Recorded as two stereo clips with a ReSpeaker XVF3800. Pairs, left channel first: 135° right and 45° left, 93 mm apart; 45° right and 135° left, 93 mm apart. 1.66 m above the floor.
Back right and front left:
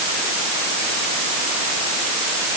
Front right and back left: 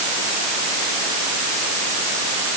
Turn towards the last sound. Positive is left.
No sound to turn to.